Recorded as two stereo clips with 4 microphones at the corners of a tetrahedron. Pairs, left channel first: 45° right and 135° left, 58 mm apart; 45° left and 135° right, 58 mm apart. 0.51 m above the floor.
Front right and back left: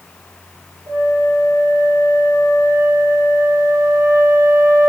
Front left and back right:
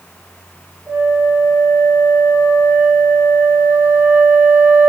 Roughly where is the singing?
I don't hear singing.